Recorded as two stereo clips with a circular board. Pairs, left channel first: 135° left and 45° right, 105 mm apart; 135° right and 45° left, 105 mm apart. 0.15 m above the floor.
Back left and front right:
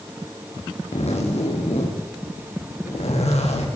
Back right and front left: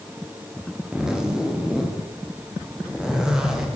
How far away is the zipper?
About 7.5 m.